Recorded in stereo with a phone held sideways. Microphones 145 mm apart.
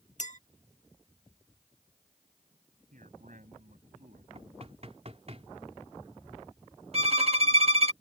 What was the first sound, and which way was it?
A clink, 60° left (ahead or behind).